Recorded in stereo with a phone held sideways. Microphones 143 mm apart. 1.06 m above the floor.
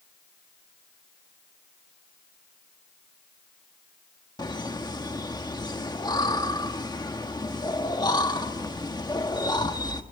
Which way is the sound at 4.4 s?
30° left (ahead or behind).